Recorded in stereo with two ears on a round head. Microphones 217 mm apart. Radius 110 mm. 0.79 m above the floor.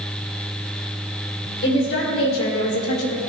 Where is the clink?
No clink in this recording.